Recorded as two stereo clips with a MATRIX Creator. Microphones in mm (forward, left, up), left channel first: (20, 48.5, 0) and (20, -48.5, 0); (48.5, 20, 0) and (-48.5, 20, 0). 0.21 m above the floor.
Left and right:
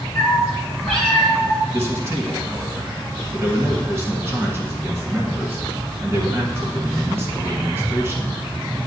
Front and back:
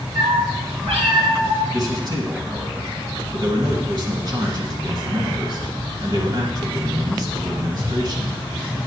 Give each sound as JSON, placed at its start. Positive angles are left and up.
{"t": 0.1, "sound": "a cat meowing", "azimuth_deg": 175, "distance_m": 2.5}
{"t": 1.7, "sound": "a man speaking", "azimuth_deg": -145, "distance_m": 2.5}